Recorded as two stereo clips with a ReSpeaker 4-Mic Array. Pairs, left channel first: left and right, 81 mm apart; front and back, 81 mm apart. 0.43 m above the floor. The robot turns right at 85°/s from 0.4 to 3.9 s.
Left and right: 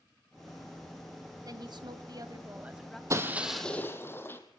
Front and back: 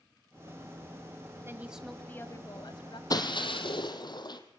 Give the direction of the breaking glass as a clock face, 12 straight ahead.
1 o'clock.